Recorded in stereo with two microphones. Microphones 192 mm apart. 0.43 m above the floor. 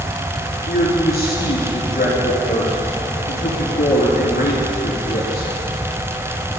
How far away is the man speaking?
About 4.5 m.